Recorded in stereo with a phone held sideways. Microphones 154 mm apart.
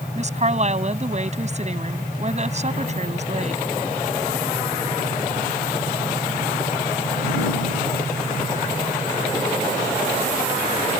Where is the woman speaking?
45° right (ahead or behind).